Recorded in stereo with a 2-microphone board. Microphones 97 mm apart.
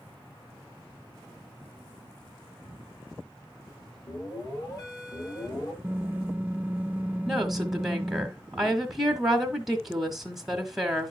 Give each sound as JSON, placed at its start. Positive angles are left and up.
{"t": 4.1, "sound": "an alarm", "side_deg": 35, "distance_m": 6.5}
{"t": 5.8, "sound": "typing on a keyboard", "side_deg": -15, "distance_m": 0.8}
{"t": 7.3, "sound": "a woman speaking", "side_deg": -5, "distance_m": 1.3}